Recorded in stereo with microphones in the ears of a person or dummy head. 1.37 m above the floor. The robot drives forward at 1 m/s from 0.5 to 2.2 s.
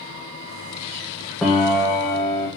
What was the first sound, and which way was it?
A piano, 5° left (ahead or behind).